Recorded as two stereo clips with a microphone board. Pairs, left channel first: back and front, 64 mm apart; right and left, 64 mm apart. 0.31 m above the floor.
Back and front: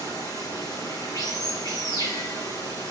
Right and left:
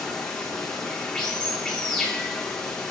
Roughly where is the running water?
Behind.